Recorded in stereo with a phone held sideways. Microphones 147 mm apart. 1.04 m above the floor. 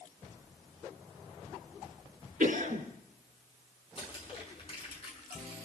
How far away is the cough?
About 3.5 m.